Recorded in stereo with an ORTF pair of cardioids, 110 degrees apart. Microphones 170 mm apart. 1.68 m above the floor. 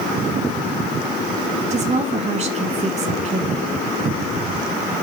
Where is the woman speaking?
45° right, 1.8 m.